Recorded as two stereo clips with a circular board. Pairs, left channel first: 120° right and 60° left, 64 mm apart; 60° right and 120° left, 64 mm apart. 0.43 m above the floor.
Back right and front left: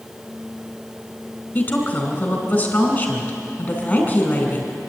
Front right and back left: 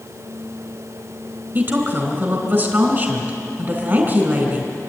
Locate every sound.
1.6 s a woman speaking: 175° left, 4 m